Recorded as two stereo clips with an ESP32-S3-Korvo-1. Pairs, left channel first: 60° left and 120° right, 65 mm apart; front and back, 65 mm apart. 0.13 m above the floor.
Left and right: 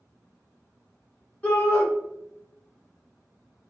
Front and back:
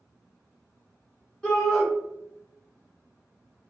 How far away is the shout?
About 1.3 m.